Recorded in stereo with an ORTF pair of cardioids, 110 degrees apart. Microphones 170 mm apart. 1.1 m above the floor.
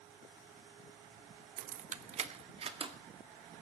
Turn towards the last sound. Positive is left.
turn(degrees=-35)